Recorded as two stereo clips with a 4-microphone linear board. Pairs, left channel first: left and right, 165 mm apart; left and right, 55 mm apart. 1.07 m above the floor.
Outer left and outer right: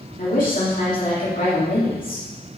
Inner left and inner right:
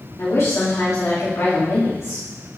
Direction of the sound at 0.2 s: 55° left (ahead or behind).